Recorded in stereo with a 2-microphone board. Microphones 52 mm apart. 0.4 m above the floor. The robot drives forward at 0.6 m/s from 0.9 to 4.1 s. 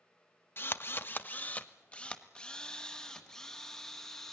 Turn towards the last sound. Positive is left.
turn(degrees=10)  # may be behind; listen again after turning